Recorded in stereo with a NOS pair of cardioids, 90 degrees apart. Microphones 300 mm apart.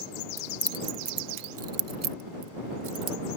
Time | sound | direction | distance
0.4 | keys jangling | straight ahead | ?